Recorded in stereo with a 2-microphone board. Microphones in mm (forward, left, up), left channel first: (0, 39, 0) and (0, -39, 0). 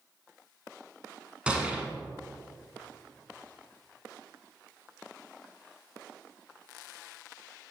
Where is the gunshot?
15° right (ahead or behind), 1.0 m.